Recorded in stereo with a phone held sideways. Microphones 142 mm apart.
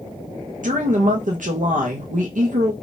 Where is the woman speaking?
65° right (ahead or behind), 0.8 m.